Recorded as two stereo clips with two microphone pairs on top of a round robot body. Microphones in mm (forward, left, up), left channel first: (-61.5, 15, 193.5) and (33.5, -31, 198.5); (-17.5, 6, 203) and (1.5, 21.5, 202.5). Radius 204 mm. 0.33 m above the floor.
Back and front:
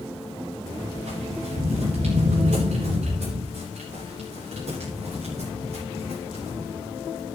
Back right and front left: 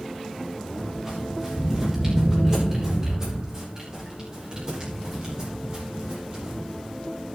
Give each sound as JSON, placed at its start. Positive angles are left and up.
{"t": 1.1, "sound": "footsteps", "azimuth_deg": -30, "distance_m": 7.5}